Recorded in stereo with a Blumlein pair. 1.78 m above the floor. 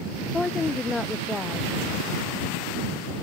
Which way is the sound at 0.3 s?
10° left.